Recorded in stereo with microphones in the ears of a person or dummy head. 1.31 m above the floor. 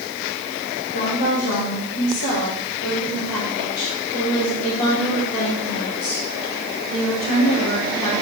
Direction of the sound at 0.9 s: 70° left (ahead or behind).